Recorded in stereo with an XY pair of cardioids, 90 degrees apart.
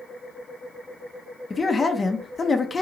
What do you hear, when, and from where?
1.5 s a man speaking: 30° left, 0.5 m